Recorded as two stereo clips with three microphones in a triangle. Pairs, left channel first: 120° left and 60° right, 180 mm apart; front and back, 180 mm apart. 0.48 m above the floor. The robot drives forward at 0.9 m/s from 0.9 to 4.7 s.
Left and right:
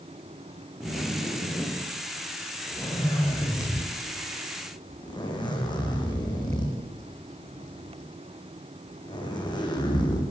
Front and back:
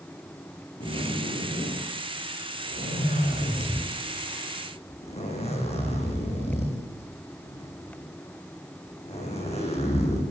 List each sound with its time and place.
0.8 s a zipper: 35° left, 9 m; by 10.2 s 55° left, 7 m